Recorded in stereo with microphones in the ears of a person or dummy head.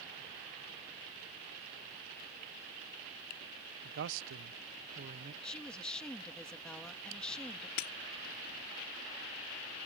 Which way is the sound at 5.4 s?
5° left (ahead or behind).